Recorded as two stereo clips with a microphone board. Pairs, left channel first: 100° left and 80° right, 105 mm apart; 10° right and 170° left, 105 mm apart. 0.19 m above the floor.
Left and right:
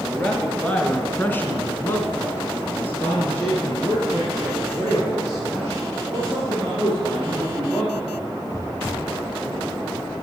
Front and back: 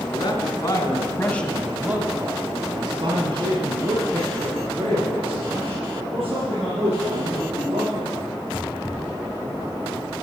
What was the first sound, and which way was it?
A man speaking, 20° left.